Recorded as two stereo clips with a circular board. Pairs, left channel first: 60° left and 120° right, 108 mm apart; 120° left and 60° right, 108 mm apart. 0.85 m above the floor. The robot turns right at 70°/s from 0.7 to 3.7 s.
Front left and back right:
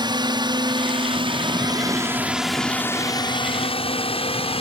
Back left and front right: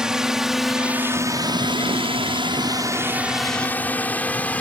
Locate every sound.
0.0 s a drone: 140° right; by 4.6 s 45° left